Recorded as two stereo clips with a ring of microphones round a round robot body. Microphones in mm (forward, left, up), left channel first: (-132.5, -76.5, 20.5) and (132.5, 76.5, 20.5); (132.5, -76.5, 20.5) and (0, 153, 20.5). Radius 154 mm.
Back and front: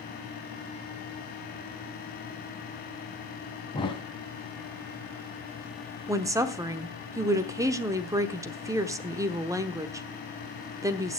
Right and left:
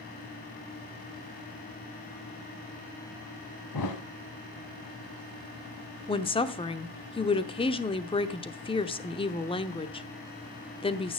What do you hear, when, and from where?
3.7 s a thud: 75° right, 1.4 m
6.1 s a woman speaking: 30° right, 0.9 m